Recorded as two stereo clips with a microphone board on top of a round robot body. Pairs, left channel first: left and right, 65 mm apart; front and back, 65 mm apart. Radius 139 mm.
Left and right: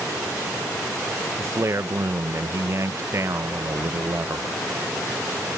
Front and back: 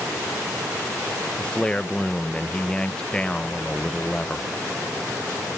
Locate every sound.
1.4 s a man speaking: 70° right